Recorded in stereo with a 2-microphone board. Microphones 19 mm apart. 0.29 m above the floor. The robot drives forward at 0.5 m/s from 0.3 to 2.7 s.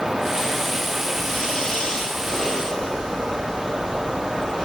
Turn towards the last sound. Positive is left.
turn(degrees=35)  # may be behind; listen again after turning